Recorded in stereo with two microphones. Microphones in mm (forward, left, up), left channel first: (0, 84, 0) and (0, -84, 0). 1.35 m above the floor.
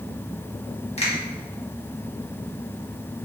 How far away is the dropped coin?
I don't hear a dropped coin.